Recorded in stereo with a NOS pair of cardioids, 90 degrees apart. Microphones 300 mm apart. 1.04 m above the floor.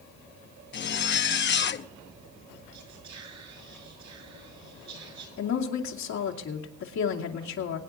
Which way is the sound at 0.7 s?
40° left.